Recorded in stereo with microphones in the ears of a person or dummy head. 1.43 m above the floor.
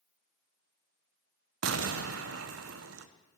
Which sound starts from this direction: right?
An explosion, at 1.6 s.